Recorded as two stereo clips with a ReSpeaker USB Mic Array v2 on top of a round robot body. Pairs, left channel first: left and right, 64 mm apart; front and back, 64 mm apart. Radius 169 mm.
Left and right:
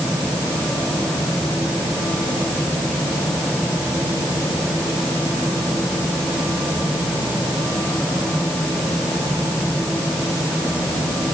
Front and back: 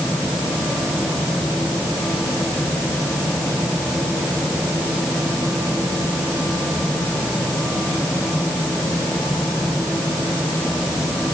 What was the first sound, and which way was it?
Only background noise.